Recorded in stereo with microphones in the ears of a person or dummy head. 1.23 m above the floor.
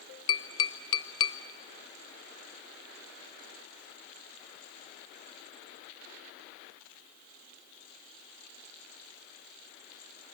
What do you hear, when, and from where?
0.3 s tapping: 25° left (ahead or behind), 0.9 m